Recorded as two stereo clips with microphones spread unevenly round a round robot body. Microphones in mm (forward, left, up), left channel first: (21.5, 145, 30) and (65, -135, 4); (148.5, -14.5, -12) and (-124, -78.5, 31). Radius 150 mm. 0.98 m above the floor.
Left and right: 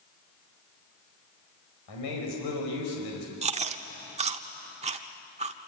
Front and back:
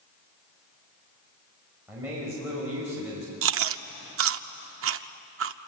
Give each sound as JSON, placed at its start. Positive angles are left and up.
{"t": 1.9, "sound": "a man speaking", "azimuth_deg": 110, "distance_m": 5.0}
{"t": 3.4, "sound": "chewing", "azimuth_deg": -150, "distance_m": 0.7}